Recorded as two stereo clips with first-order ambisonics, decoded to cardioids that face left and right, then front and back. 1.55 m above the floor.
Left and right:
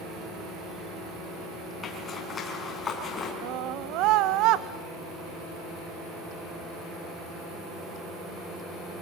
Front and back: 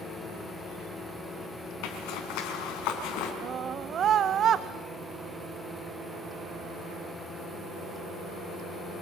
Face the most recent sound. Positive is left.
turn(degrees=-125)